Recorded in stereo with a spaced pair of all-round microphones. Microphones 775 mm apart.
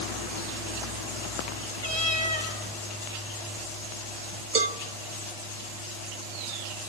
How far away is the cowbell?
About 1.1 m.